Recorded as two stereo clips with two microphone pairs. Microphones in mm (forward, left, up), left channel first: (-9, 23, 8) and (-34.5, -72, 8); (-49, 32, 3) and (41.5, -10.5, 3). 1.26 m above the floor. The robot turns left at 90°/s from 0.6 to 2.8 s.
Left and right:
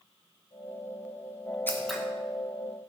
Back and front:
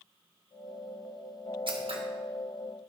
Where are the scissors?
5° left, 1.6 m; by 2.0 s 25° right, 1.6 m.